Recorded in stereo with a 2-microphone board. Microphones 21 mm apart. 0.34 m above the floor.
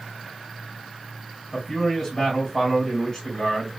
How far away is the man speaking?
About 2.5 m.